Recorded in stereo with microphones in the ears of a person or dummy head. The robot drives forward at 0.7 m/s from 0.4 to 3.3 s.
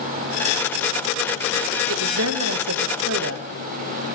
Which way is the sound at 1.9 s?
70° right (ahead or behind).